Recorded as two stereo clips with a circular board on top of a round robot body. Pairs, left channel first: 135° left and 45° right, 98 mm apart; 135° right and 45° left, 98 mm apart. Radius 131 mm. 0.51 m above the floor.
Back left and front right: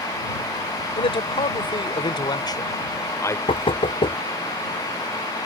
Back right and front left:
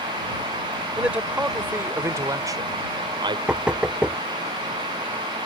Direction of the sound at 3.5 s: 125° left.